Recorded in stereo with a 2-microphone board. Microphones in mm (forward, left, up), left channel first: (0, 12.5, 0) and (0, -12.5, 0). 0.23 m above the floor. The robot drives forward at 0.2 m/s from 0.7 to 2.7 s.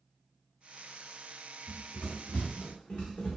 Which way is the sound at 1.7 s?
45° left (ahead or behind).